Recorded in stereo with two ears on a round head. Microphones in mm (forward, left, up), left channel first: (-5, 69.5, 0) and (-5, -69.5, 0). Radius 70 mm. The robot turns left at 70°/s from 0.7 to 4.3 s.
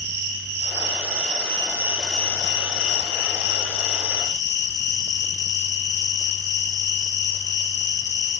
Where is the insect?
85° right, 1.1 m; by 8.4 s 25° left, 1.1 m.